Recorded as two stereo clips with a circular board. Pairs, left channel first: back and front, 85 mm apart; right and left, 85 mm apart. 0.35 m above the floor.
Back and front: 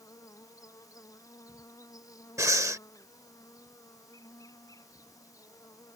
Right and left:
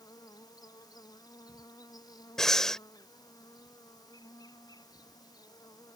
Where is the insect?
130° right.